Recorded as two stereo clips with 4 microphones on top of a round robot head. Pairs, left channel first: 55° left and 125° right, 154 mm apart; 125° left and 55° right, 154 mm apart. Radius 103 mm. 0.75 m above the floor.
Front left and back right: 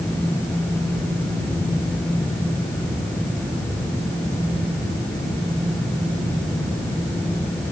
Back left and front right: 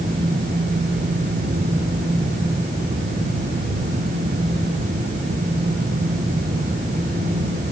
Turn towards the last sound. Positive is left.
No sound to turn to.